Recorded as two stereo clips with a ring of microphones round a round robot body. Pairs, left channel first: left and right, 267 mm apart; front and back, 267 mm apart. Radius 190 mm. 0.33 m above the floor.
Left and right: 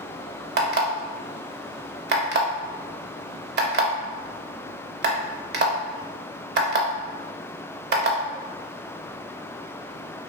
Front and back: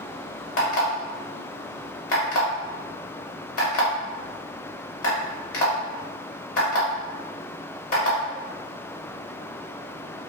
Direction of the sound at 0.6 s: 40° right.